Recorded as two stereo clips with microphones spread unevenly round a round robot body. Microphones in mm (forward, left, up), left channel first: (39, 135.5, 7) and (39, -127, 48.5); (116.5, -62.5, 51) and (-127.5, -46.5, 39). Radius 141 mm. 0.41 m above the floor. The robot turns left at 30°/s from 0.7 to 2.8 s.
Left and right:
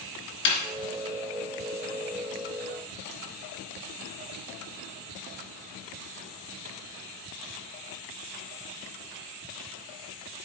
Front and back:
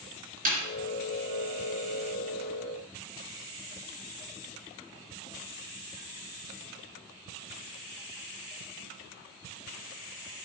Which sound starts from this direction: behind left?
A snare drum, at 0.5 s.